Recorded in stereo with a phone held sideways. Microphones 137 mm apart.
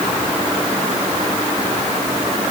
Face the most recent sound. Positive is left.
No sound to turn to.